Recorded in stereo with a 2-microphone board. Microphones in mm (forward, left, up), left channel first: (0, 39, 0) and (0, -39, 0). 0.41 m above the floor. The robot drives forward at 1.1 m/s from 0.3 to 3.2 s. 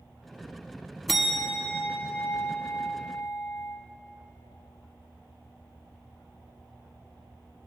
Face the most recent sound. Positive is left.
turn(degrees=0)  # may be behind; listen again after turning